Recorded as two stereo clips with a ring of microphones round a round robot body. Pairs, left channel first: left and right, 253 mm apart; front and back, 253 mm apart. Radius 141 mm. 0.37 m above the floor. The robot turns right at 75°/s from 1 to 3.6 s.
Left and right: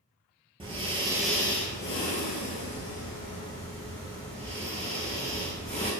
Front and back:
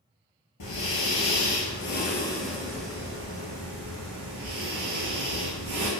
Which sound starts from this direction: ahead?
Breathing, at 0.6 s.